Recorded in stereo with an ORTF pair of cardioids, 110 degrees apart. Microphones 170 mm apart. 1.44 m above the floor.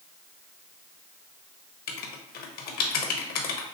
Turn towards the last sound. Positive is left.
turn(degrees=65)